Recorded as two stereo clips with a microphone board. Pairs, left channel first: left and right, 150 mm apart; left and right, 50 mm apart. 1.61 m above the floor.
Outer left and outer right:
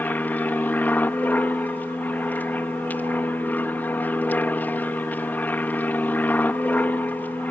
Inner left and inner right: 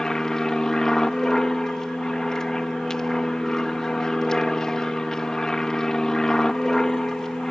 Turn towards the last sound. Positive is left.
turn(degrees=10)  # may be behind; listen again after turning